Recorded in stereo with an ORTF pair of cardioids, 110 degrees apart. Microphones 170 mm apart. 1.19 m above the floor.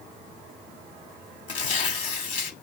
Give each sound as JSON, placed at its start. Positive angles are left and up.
{"t": 1.5, "sound": "tearing paper", "azimuth_deg": 50, "distance_m": 1.9}